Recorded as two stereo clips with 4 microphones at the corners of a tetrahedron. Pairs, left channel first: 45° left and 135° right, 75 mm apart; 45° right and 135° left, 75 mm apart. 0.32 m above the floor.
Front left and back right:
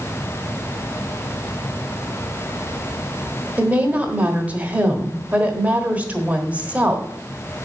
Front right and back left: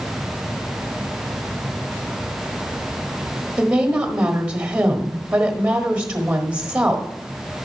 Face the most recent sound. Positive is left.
turn(degrees=180)